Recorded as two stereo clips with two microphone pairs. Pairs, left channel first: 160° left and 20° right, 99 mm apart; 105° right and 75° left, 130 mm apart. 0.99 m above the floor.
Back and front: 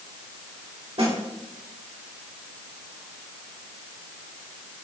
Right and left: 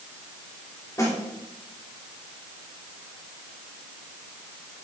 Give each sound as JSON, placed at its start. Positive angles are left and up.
{"t": 1.0, "sound": "a snare drum", "azimuth_deg": -40, "distance_m": 2.5}